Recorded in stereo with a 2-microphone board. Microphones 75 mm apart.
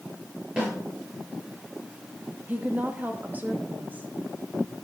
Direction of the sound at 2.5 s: 25° right (ahead or behind).